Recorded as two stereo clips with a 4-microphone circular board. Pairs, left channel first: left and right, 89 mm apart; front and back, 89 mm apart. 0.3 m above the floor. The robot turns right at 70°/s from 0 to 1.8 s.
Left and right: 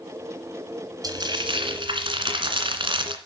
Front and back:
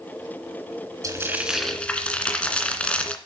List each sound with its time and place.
1.0 s frying: 130° right, 2 m; by 3.2 s 80° right, 2 m